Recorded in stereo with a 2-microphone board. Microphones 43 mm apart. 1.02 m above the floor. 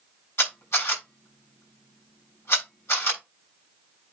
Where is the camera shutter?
65° left (ahead or behind), 6 m.